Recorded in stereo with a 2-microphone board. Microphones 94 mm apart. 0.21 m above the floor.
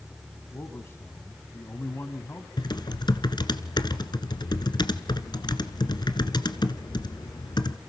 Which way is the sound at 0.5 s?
25° left (ahead or behind).